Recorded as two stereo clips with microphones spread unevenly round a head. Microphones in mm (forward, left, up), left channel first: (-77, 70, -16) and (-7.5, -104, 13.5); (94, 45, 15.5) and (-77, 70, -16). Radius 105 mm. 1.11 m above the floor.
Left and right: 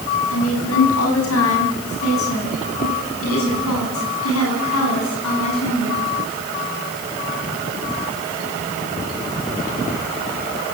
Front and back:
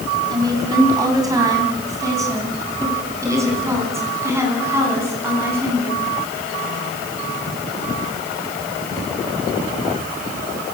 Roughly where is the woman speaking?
Left.